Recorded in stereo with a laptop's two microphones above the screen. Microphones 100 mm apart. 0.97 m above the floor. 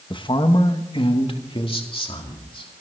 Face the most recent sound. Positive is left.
turn(degrees=65)  # may be behind; listen again after turning